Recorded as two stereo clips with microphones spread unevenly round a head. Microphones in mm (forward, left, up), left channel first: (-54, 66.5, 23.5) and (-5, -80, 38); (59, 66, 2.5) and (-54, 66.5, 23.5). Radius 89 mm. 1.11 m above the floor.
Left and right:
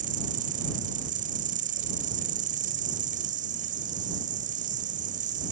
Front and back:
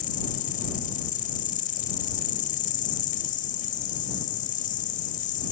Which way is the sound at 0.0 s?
25° right.